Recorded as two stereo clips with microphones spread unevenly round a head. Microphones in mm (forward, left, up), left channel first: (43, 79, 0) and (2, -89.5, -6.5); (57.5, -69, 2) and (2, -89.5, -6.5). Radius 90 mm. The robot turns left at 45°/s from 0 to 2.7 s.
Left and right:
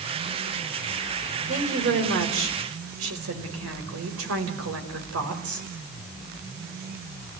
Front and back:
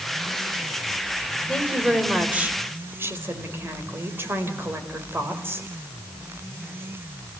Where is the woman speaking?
55° right, 5 m; by 5.7 s 110° right, 5 m.